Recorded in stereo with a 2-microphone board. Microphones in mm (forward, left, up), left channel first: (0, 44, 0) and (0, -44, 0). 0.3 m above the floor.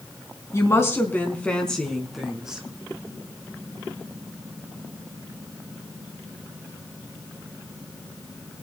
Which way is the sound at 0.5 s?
35° left (ahead or behind).